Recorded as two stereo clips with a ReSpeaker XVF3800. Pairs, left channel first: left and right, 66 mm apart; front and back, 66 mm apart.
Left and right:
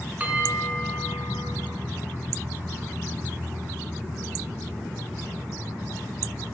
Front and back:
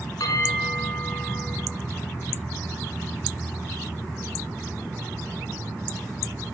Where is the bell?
25° right, 3 m.